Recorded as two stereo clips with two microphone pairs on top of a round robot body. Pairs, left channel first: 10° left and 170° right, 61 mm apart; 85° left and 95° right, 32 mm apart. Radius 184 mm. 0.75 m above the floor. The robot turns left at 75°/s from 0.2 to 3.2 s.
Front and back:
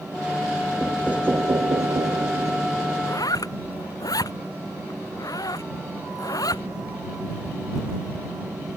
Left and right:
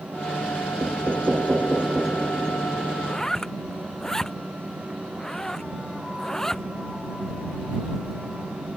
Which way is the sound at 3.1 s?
15° left.